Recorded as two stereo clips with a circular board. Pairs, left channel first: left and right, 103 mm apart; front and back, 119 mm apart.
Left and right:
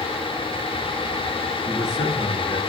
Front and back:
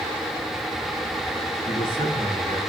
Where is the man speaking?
40° left, 3.5 m.